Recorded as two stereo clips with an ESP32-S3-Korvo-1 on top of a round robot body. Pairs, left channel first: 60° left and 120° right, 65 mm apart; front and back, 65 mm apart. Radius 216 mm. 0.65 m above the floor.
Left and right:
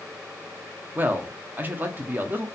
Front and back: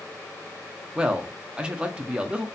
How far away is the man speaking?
About 0.8 m.